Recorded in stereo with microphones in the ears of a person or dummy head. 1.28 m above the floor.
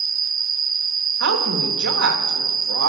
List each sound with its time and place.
0.0 s an insect: 20° right (ahead or behind), 0.7 m
1.2 s a woman speaking: 75° right (ahead or behind), 1.3 m